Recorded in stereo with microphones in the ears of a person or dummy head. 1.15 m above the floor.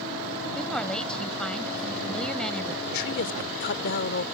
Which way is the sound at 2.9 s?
70° left (ahead or behind).